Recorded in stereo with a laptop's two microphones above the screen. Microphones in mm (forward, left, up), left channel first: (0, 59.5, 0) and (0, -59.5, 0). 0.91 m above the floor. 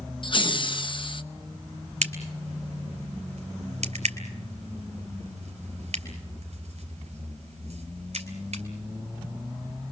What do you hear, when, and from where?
0.2 s laughter: 45° left (ahead or behind), 0.9 m
2.0 s a crack: 70° right (ahead or behind), 2.5 m